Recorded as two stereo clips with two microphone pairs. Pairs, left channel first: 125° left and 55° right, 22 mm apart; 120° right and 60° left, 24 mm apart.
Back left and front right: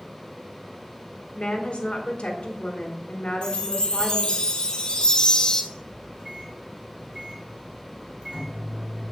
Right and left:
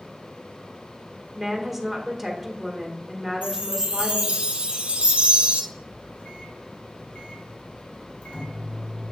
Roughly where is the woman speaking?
Behind left.